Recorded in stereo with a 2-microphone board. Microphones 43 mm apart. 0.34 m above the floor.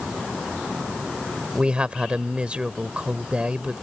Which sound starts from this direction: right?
A man speaking, at 1.6 s.